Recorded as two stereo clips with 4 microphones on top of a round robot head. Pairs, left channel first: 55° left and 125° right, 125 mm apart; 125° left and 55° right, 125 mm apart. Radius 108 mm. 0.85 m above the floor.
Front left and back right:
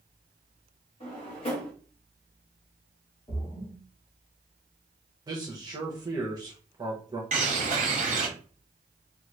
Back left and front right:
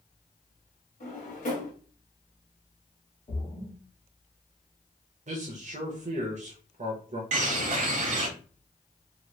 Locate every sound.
1.0 s a drawer: 95° left, 1.1 m
3.3 s a splash: 100° left, 1.3 m
5.3 s a man speaking: 70° right, 0.8 m
7.3 s a bird: 90° right, 0.6 m